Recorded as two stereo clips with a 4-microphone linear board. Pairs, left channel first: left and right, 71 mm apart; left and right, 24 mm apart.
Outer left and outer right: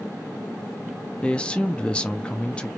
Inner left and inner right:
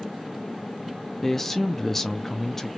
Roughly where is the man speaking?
Centre.